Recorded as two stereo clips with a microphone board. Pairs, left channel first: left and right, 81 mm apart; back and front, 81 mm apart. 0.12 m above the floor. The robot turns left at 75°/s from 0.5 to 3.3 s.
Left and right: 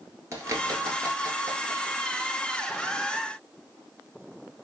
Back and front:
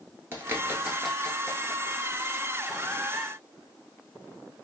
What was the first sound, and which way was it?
A bird, 55° right.